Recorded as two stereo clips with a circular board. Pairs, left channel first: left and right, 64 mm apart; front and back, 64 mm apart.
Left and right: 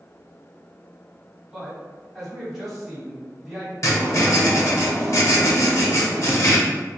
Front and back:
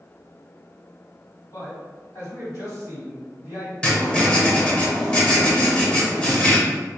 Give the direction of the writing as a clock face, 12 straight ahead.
10 o'clock.